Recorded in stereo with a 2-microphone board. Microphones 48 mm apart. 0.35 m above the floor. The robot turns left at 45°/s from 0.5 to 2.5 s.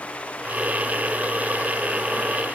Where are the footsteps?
I don't hear footsteps.